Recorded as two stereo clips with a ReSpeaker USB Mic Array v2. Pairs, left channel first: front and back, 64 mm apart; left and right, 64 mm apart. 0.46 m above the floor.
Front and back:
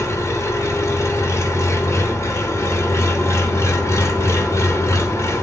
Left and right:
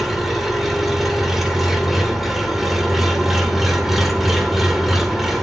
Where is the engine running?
5° right, 1.1 m.